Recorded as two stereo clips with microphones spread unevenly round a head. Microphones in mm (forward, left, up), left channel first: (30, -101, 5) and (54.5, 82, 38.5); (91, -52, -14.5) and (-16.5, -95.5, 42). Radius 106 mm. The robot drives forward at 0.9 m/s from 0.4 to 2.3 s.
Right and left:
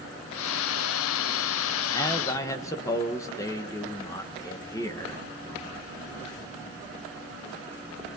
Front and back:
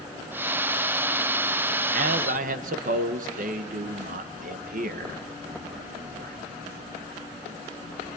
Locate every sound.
1.9 s a man speaking: 175° right, 1.2 m